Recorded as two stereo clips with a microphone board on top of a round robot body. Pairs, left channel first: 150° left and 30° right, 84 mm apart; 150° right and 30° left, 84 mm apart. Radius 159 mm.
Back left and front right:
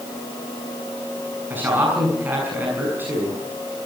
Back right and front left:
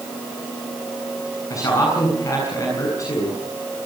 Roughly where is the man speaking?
Right.